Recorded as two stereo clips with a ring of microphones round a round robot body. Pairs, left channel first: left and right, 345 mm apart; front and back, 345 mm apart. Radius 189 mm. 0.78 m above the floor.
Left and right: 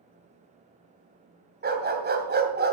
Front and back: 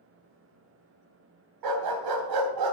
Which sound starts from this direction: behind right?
A dog barking, at 1.6 s.